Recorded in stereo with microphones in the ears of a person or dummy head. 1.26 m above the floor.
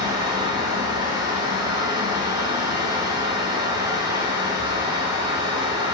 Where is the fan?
25° right (ahead or behind), 1.1 m.